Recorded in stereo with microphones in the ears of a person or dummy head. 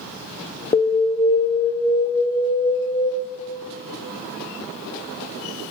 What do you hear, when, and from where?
0.7 s an alarm: 25° left (ahead or behind), 0.6 m